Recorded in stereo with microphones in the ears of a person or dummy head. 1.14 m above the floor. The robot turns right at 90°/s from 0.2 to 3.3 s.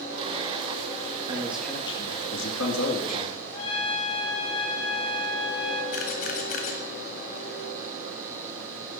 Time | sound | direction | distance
1.3 | a man speaking | 30° right | 1.8 m
3.5 | a trumpet | 30° left (ahead or behind) | 3 m
5.9 | a camera shutter | 50° left (ahead or behind) | 1.6 m